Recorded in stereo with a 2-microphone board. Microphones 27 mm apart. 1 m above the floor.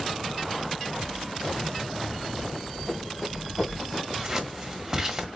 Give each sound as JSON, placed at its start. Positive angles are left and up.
{"t": 2.5, "sound": "running footsteps", "side_deg": -15, "distance_m": 3.0}
{"t": 4.1, "sound": "scissors", "side_deg": -20, "distance_m": 1.1}